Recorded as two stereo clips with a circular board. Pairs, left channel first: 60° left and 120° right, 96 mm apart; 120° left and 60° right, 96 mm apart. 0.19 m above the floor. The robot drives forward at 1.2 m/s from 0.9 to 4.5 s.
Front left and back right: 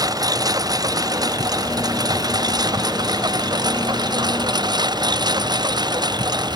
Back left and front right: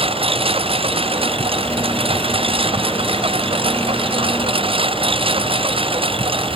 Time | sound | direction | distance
0.0 | a lawn mower | 70° right | ?